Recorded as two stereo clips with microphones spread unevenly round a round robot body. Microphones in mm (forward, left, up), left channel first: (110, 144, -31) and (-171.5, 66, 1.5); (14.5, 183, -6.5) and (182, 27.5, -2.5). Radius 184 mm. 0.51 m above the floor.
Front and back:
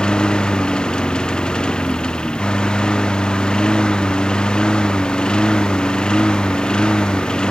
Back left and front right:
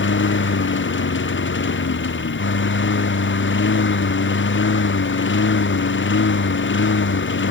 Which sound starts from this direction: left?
A lawn mower, at 0.0 s.